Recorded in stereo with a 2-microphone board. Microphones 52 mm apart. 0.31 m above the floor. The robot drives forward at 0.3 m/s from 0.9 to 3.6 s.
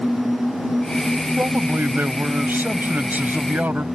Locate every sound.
1.4 s a man speaking: 40° right (ahead or behind); by 3.9 s 35° right (ahead or behind)